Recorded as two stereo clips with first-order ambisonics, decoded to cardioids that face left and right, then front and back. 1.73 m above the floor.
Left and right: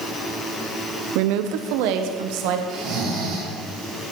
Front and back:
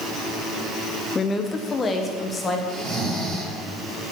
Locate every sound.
1.1 s a woman speaking: 75° right, 0.7 m
2.7 s snoring: 115° right, 6 m